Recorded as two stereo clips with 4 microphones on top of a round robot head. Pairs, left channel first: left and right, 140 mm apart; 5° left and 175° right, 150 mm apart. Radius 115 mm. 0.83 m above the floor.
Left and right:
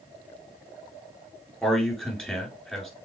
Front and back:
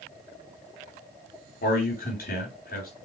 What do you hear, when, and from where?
1.6 s a man speaking: 5° left, 3 m